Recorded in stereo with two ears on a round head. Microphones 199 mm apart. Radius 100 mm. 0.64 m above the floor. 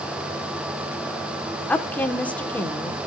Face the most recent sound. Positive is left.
turn(degrees=10)  # may be behind; listen again after turning